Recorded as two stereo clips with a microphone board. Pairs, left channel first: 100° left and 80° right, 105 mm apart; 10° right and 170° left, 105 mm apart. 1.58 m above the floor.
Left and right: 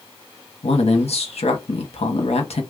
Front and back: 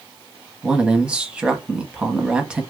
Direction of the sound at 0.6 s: 90° left.